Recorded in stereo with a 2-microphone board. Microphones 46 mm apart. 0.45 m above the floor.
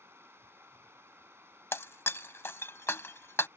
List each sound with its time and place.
0.0 s running water: 70° right (ahead or behind)
1.7 s breaking glass: 65° left (ahead or behind)